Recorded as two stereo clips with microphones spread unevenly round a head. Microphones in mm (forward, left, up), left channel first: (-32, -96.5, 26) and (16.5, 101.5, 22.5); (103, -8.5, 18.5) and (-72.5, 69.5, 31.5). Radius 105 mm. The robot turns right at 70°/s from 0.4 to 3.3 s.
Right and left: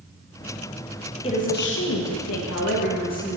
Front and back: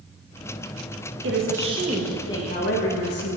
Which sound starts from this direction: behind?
A woman speaking, at 1.2 s.